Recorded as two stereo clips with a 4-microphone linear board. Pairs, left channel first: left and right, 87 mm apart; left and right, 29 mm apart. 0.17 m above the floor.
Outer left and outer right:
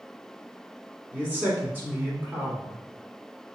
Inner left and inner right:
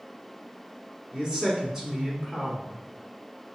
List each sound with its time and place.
1.1 s a man speaking: 20° right (ahead or behind), 1.4 m